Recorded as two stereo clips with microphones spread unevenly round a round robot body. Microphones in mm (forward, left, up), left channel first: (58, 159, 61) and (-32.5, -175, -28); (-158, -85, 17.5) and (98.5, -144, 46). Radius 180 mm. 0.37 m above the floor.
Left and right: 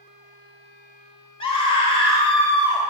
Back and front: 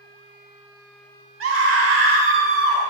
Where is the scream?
10° right, 1.6 m.